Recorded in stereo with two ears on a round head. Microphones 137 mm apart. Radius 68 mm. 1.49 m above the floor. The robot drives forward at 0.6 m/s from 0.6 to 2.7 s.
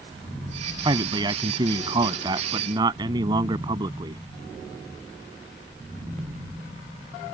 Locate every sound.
0.8 s a man speaking: 30° right (ahead or behind); by 4.2 s 25° right (ahead or behind)